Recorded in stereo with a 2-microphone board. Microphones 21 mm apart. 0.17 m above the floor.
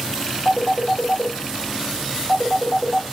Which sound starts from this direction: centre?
A phone ringing, at 0.5 s.